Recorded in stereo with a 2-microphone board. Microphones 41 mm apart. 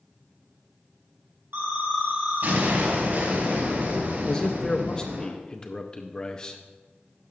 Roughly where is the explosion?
Right.